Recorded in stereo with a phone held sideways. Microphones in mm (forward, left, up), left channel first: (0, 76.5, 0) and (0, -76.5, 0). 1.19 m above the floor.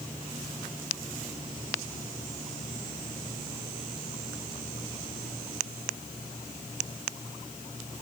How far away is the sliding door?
No sliding door in this recording.